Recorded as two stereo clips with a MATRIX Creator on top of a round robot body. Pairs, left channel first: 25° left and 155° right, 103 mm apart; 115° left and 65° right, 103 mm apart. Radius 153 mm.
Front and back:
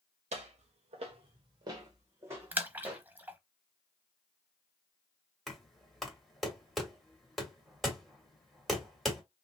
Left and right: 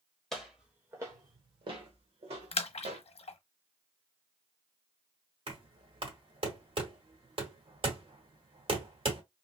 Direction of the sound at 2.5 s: 130° left.